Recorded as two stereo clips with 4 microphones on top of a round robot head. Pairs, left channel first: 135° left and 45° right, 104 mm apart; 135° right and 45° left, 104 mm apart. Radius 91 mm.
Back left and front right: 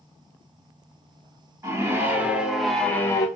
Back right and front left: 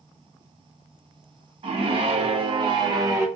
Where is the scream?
15° left, 1.1 m; by 3.3 s 95° left, 0.6 m.